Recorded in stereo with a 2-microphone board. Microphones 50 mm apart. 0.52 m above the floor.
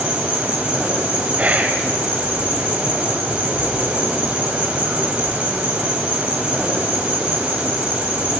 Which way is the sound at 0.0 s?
20° right (ahead or behind).